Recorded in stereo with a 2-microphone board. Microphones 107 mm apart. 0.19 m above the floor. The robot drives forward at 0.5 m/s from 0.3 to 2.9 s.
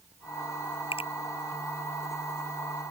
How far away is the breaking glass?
I don't hear breaking glass.